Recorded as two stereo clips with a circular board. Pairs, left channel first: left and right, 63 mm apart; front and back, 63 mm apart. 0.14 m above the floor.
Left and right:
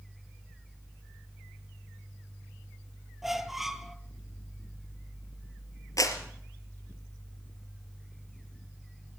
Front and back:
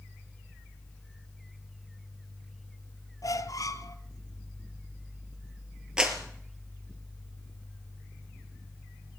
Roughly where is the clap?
Left.